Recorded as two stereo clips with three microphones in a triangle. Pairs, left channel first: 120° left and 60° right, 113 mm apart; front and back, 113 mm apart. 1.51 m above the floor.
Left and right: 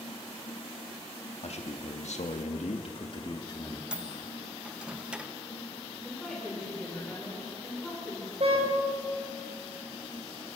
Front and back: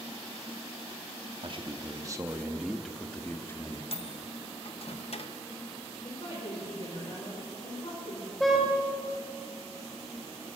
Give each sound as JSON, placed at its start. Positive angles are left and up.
{"t": 1.4, "sound": "a man speaking", "azimuth_deg": 140, "distance_m": 2.5}
{"t": 3.9, "sound": "a microwave", "azimuth_deg": 20, "distance_m": 1.2}
{"t": 6.0, "sound": "a woman speaking", "azimuth_deg": 30, "distance_m": 5.0}
{"t": 8.4, "sound": "a car horn", "azimuth_deg": -90, "distance_m": 4.5}